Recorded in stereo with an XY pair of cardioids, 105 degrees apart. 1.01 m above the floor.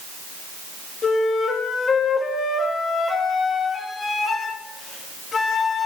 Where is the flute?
40° left, 1.4 m.